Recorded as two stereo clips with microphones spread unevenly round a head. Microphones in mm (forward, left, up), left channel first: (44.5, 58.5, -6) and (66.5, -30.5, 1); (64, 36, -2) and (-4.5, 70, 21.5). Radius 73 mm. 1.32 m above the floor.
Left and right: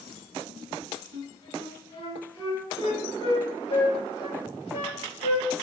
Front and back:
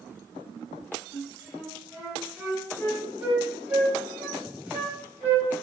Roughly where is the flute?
Left.